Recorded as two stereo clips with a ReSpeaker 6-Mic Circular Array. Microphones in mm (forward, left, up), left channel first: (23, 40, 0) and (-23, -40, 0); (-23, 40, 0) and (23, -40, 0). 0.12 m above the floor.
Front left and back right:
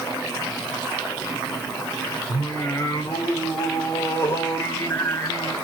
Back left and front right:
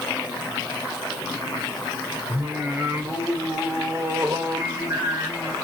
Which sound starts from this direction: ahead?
Singing, at 2.3 s.